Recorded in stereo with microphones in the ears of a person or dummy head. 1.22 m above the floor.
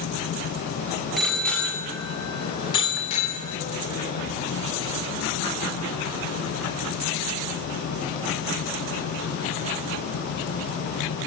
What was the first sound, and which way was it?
A bicycle bell, centre (ahead or behind).